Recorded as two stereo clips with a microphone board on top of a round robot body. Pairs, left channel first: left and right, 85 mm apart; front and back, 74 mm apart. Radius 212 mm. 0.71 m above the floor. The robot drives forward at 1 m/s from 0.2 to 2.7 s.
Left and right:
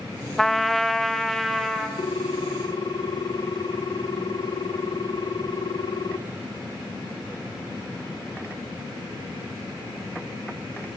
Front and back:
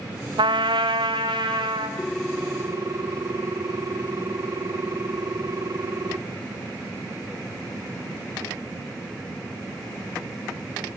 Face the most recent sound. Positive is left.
turn(degrees=130)